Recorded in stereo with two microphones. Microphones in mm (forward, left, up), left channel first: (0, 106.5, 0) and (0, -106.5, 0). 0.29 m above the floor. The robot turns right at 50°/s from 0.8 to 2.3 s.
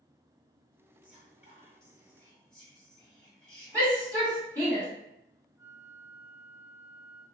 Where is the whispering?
110° left, 1.6 m; by 4.5 s 175° left, 1.6 m.